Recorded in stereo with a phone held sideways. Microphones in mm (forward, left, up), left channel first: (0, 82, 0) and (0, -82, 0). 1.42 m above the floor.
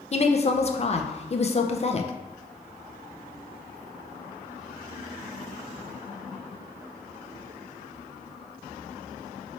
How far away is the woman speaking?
About 0.5 m.